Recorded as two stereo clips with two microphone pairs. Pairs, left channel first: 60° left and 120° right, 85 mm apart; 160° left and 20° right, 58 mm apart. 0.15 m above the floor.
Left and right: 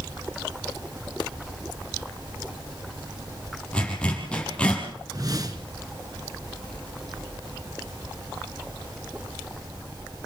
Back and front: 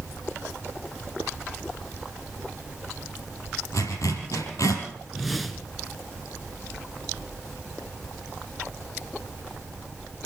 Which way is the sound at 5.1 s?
110° right.